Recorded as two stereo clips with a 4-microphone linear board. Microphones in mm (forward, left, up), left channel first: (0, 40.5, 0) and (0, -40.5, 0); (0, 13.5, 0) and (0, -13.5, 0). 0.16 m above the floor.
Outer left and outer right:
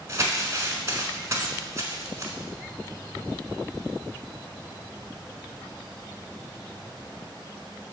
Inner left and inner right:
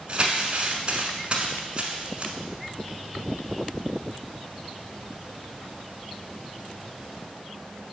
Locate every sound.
0.1 s crumpling: 35° right (ahead or behind), 1.2 m